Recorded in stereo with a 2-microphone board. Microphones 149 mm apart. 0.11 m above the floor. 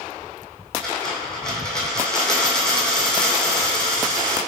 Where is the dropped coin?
5° left (ahead or behind), 1.6 m.